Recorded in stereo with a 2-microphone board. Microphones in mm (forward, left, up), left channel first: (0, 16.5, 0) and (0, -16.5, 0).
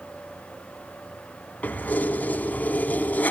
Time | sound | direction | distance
1.6 | keys jangling | 50° left (ahead or behind) | 2.5 m